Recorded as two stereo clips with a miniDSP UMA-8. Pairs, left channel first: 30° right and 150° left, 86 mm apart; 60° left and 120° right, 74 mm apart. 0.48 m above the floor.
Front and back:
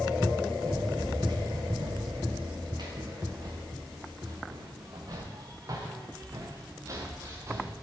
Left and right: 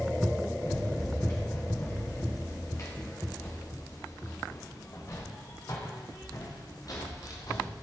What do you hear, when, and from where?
0.6 s running footsteps: 115° left, 8.5 m; by 7.7 s 95° left, 6.5 m